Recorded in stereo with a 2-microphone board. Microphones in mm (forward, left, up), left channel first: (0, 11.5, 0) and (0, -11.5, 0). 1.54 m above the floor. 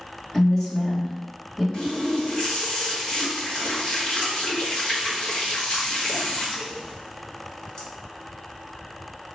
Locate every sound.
0.3 s a woman speaking: 15° left (ahead or behind), 1.5 m
1.7 s a running tap: 35° left (ahead or behind), 1.4 m